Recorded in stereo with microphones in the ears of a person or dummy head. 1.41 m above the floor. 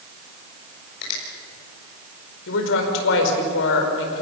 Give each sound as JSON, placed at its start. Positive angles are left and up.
{"t": 1.0, "sound": "a finger snap", "side_deg": 60, "distance_m": 6.0}
{"t": 2.5, "sound": "a woman speaking", "side_deg": 75, "distance_m": 4.5}